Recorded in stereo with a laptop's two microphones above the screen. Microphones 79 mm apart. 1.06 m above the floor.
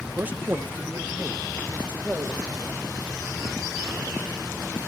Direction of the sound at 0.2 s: 25° right (ahead or behind).